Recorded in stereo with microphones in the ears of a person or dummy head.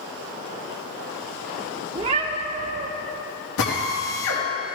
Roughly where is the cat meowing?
Right.